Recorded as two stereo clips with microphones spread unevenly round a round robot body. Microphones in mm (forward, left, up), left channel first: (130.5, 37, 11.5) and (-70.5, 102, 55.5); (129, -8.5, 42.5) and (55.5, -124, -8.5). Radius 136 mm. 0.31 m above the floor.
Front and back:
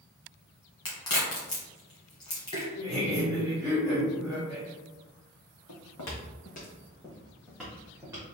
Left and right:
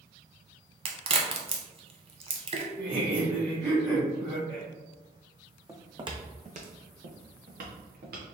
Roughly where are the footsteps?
Ahead right.